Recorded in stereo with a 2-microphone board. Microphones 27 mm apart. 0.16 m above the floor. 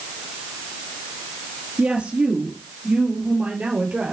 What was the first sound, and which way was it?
A woman speaking, 60° right (ahead or behind).